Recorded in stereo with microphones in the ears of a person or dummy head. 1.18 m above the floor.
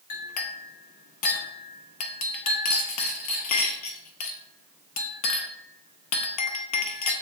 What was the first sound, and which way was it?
A clink, 40° left (ahead or behind).